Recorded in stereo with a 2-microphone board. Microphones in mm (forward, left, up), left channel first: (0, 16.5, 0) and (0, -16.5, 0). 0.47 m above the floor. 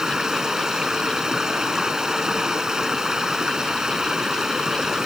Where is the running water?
20° right (ahead or behind).